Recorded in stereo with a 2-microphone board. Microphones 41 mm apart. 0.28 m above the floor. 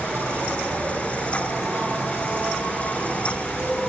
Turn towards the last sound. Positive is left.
turn(degrees=-50)  # may be behind; listen again after turning